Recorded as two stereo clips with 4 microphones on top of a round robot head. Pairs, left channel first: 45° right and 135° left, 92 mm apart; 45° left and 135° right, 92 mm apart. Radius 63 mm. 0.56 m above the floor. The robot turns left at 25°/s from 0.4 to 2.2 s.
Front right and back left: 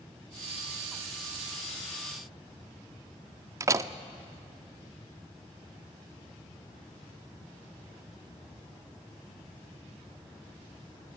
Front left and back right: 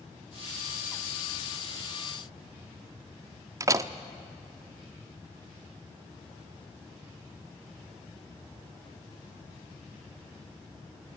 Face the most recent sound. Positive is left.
turn(degrees=180)